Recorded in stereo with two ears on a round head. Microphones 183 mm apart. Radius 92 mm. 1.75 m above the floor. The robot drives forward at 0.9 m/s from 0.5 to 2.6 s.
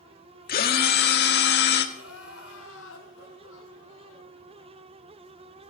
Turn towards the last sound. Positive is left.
turn(degrees=75)  # may be behind; listen again after turning